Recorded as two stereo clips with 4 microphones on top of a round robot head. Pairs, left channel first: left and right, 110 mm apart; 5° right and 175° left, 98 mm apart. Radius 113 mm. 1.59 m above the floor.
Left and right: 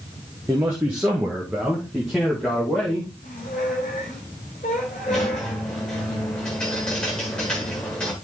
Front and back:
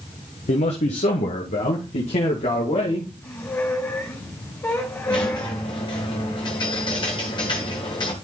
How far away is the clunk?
I don't hear a clunk.